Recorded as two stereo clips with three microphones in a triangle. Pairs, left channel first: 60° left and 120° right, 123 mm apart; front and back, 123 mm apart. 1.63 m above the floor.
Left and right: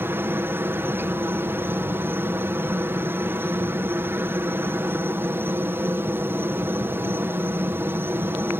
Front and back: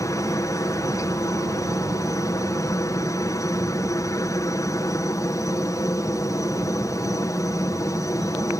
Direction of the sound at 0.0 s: 55° right.